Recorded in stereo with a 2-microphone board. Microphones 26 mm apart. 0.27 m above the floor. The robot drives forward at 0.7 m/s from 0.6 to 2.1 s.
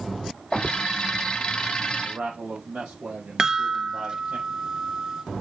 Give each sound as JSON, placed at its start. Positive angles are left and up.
{"t": 2.0, "sound": "a man speaking", "side_deg": -60, "distance_m": 6.0}
{"t": 3.4, "sound": "a chime", "side_deg": -25, "distance_m": 0.8}